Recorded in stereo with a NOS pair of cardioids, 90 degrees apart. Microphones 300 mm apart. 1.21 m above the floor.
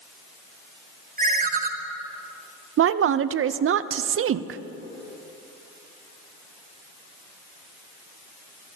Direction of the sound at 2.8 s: 45° right.